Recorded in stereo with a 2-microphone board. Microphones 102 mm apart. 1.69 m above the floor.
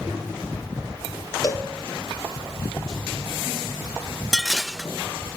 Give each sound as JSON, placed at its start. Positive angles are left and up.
{"t": 1.4, "sound": "a cowbell", "side_deg": 35, "distance_m": 2.5}
{"t": 4.3, "sound": "dishes clattering", "side_deg": 0, "distance_m": 0.9}